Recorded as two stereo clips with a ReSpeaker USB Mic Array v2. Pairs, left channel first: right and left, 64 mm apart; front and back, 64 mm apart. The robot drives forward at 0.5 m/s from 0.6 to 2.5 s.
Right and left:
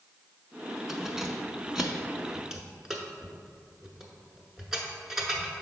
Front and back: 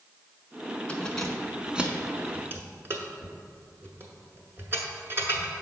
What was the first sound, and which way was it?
Keys jangling, 20° left.